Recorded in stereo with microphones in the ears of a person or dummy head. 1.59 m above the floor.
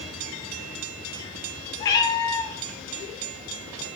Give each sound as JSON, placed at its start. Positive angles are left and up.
{"t": 1.8, "sound": "a cat meowing", "side_deg": 20, "distance_m": 1.3}